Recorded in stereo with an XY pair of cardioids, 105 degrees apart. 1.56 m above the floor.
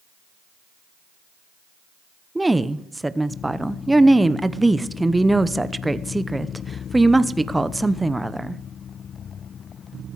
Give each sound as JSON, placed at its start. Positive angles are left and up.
{"t": 2.4, "sound": "a woman speaking", "azimuth_deg": -10, "distance_m": 0.7}